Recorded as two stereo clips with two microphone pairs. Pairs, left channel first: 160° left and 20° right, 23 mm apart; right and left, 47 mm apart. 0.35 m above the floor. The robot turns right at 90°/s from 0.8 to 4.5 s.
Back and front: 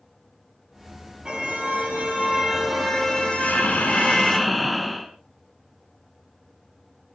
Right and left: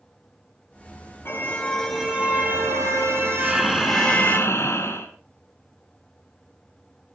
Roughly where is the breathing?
Behind left.